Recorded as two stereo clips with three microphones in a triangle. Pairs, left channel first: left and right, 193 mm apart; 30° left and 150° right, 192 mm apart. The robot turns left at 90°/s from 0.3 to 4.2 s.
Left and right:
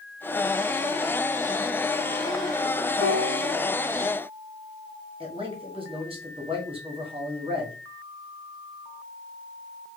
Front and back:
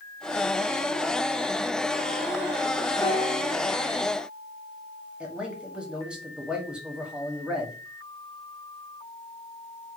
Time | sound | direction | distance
3.0 | a piano | 95° left | 1.3 m
5.2 | a man speaking | 70° right | 1.0 m